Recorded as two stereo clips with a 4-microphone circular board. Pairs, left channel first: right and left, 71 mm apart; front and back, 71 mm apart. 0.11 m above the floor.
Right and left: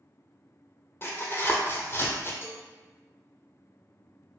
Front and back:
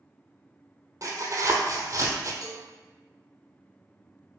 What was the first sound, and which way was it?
Tearing paper, 140° right.